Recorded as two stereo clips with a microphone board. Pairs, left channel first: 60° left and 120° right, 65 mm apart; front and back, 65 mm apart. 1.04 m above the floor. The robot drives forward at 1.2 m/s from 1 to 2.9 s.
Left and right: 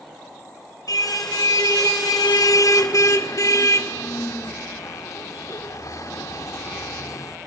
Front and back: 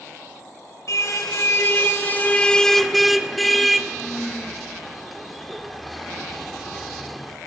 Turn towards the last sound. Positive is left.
turn(degrees=90)